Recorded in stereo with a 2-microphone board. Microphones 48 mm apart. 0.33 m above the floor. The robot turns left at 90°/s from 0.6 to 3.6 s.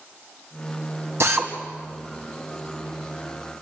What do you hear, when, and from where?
1.2 s a drill: 60° right (ahead or behind), 2.5 m; by 1.5 s 45° right (ahead or behind), 2.5 m